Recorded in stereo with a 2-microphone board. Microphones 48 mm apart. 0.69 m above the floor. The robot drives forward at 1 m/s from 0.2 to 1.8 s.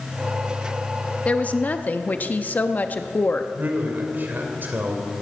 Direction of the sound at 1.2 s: 25° left (ahead or behind).